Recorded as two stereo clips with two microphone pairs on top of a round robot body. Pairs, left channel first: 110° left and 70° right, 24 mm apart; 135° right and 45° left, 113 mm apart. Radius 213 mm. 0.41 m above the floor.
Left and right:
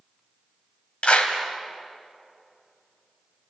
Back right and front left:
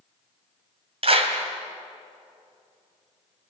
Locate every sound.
1.0 s a clap: 80° left, 2.5 m